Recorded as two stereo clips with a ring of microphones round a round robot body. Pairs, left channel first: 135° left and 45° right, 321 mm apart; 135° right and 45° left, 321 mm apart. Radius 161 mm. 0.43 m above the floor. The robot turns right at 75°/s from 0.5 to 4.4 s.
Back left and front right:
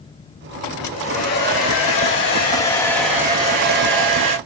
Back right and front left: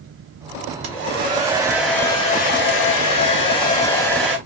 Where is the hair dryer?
60° left, 1.0 m; by 4.4 s 35° right, 1.0 m.